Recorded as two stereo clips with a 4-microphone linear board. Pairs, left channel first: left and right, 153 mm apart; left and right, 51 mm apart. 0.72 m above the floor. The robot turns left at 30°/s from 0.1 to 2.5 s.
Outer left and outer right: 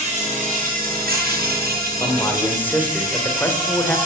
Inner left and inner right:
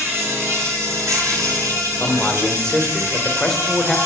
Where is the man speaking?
25° left (ahead or behind), 2 m; by 4.0 s 10° left (ahead or behind), 2 m.